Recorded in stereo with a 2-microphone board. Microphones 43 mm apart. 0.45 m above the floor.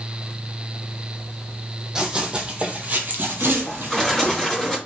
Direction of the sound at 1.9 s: 15° right (ahead or behind).